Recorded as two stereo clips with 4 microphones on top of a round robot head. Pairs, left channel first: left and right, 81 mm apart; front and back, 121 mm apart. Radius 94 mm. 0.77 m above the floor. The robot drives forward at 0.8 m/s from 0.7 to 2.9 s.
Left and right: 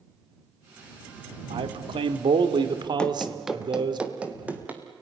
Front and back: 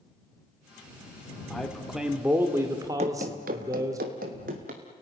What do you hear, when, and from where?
1.5 s a man speaking: 85° right, 2.0 m; by 4.0 s 115° right, 2 m
3.0 s running footsteps: 165° left, 1.1 m; by 4.8 s 160° right, 3 m